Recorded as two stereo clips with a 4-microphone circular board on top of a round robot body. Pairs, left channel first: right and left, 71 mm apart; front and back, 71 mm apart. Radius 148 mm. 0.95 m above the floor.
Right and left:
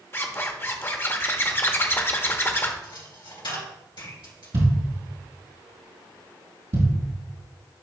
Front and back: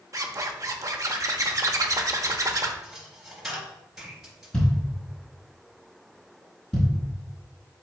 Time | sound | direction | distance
0.1 | a zipper | 145° right | 1.0 m
2.8 | a dropped coin | 95° right | 2.5 m
4.5 | a thud | 80° left | 3 m